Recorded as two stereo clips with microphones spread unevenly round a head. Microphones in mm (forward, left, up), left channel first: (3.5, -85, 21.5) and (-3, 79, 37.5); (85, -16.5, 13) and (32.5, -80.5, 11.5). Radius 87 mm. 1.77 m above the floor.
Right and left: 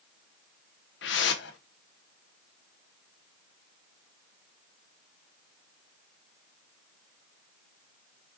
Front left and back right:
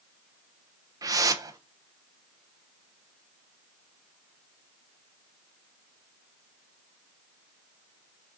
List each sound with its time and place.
1.0 s a whoosh: 95° right, 1.2 m